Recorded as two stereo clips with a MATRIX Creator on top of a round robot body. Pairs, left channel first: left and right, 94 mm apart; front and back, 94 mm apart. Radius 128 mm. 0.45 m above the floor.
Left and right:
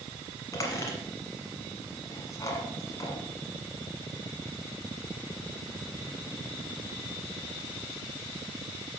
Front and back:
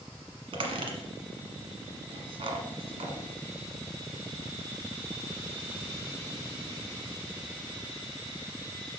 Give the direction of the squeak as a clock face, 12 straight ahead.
7 o'clock.